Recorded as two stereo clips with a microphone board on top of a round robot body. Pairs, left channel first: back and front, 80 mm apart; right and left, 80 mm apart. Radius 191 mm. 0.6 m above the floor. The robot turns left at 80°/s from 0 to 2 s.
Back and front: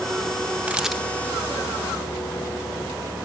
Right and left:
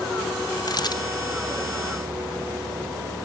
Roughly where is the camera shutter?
Right.